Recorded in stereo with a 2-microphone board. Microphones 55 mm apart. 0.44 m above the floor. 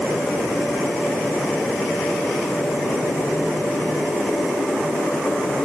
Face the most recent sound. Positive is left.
No sound to turn to.